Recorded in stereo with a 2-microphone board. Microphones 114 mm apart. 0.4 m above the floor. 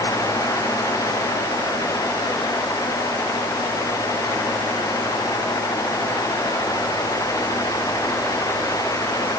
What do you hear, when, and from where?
Only background noise.